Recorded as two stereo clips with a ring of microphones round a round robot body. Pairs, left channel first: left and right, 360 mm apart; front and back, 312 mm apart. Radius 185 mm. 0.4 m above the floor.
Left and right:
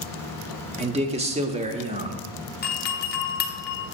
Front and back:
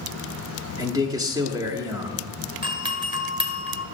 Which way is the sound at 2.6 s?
120° left.